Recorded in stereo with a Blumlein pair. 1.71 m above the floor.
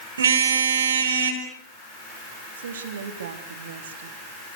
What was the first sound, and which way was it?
A car horn, 65° right.